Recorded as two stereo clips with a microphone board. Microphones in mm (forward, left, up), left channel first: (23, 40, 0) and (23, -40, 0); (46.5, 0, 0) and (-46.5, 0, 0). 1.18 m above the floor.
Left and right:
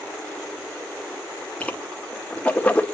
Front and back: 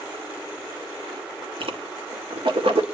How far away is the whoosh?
About 1.9 m.